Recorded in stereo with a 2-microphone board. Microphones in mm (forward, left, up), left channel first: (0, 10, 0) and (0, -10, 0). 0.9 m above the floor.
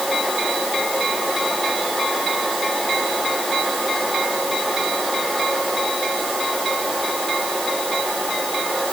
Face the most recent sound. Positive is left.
No sound to turn to.